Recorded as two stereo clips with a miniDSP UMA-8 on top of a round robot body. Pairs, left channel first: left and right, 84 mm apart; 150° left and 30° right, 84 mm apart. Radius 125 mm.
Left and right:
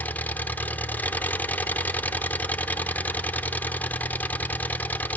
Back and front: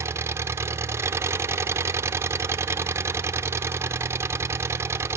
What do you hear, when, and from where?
0.0 s an engine running: 25° left, 1.0 m